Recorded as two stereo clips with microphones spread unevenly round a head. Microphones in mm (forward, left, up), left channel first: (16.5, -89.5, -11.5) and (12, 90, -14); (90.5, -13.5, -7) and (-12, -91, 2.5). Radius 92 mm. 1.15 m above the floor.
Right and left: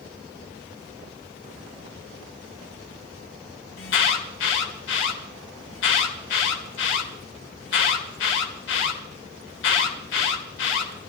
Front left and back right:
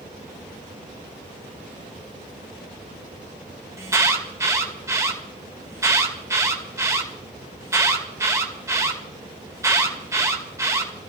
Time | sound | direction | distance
3.8 | an alarm | 75° right | 2.5 m